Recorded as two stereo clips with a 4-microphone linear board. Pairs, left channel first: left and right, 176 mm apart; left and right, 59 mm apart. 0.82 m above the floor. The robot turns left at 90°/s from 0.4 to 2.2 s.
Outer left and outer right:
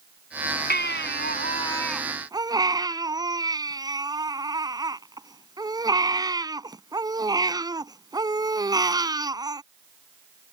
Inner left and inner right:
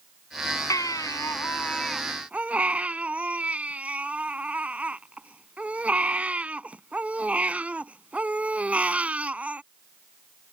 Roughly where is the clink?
No clink in this recording.